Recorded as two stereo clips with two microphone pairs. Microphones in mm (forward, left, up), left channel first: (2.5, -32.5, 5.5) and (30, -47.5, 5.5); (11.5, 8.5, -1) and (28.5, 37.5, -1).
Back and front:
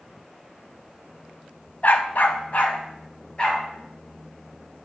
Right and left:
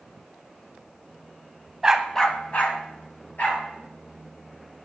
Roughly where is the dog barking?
Behind left.